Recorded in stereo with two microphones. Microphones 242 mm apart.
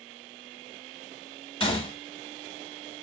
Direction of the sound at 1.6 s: 20° left (ahead or behind).